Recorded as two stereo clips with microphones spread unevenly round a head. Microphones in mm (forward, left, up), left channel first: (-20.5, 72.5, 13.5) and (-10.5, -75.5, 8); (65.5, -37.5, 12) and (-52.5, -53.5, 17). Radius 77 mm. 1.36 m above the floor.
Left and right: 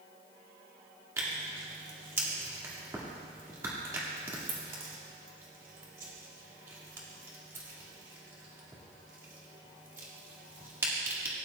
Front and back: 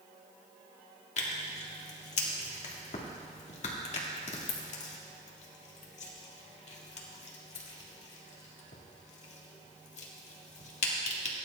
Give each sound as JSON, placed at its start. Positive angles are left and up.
{"t": 1.2, "sound": "tearing paper", "azimuth_deg": -15, "distance_m": 1.9}